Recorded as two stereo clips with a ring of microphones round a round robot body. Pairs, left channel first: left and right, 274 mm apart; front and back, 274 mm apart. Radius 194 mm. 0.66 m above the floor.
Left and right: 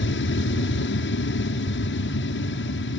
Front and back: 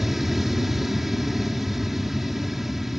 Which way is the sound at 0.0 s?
90° left.